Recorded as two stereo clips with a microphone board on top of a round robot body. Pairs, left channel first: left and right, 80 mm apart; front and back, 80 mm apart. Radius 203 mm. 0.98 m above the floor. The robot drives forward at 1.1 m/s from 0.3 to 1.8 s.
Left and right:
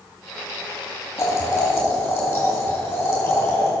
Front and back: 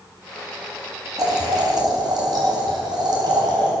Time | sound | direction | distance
1.2 | boiling | 145° left | 3 m